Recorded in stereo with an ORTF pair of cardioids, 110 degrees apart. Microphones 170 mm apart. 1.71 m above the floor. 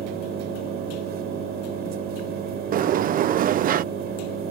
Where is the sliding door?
55° right.